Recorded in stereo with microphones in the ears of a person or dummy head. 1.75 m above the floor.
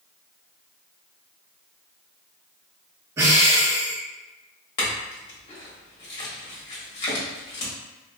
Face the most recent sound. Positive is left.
turn(degrees=40)  # may be behind; listen again after turning